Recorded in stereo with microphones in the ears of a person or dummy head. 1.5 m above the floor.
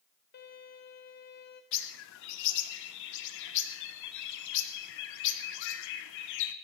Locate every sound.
0.3 s a violin: 60° left (ahead or behind), 3.5 m
1.7 s a bird: 70° left (ahead or behind), 1.0 m